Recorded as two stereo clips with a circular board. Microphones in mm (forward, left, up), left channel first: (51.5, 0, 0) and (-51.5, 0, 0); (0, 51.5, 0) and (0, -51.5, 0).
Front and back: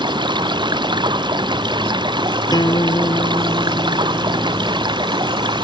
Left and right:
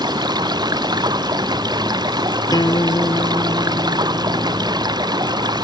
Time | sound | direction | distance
0.0 | running water | 140° right | ?
2.5 | a guitar | 45° left | ?